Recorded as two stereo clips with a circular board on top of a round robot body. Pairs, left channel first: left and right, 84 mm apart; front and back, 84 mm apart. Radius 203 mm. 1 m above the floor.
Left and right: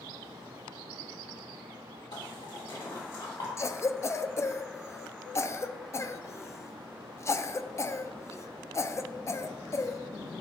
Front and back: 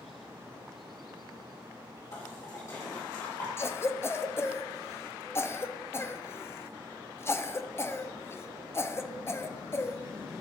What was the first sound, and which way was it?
A splash, 50° left.